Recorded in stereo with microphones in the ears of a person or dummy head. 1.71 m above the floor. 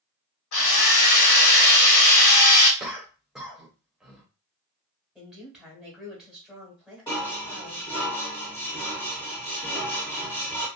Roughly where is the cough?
Centre.